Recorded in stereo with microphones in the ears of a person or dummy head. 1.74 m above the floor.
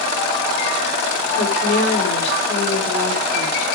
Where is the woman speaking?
70° left (ahead or behind), 5.5 m.